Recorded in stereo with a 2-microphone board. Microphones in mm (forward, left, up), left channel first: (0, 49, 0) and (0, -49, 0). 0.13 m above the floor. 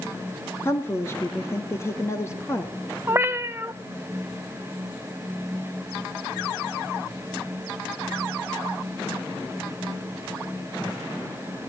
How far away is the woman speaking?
About 2 m.